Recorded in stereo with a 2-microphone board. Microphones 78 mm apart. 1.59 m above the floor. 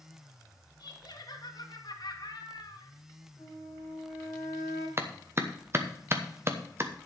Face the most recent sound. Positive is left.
turn(degrees=-30)  # may be behind; listen again after turning